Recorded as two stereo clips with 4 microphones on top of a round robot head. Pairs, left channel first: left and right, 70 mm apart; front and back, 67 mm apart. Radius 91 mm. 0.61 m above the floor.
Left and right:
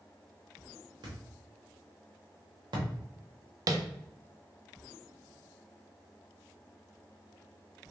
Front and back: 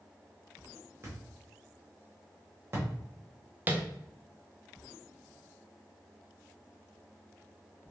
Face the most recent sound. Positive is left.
turn(degrees=-115)